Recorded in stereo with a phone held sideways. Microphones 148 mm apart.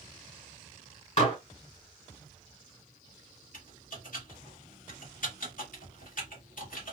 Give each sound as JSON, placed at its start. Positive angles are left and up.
{"t": 1.2, "sound": "dishes clattering", "side_deg": 50, "distance_m": 1.7}
{"t": 3.5, "sound": "typing on a keyboard", "side_deg": 65, "distance_m": 1.3}